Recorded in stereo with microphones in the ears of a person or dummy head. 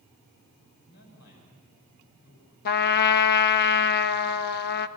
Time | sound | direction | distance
0.8 | a man speaking | 60° left (ahead or behind) | 8.5 m
2.6 | a trumpet | 55° left (ahead or behind) | 1.2 m